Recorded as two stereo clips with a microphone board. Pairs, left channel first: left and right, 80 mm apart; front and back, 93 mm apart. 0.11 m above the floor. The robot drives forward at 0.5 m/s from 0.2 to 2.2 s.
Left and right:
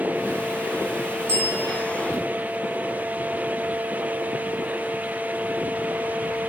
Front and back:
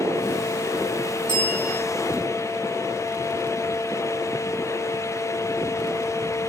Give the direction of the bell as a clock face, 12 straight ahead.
1 o'clock.